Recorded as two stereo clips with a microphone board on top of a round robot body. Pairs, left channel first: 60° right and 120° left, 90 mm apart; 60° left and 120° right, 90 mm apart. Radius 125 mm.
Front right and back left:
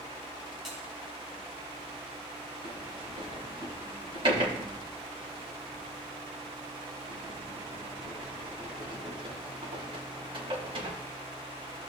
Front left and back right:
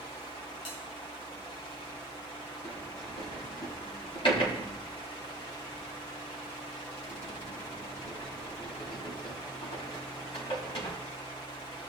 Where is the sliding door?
85° left, 4 m.